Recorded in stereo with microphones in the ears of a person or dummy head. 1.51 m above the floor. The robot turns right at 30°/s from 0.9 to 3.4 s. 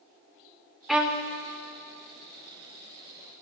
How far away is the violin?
About 0.6 m.